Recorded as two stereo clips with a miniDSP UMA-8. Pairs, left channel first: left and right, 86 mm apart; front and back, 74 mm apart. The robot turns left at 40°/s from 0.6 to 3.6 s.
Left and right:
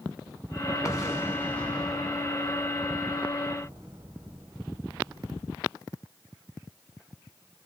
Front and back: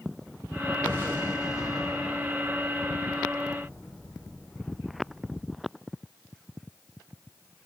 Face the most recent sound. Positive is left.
turn(degrees=-60)